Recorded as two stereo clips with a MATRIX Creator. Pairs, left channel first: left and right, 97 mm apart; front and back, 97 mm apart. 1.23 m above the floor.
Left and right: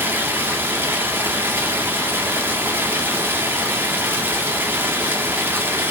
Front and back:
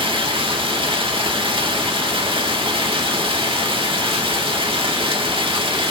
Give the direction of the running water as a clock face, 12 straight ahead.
5 o'clock.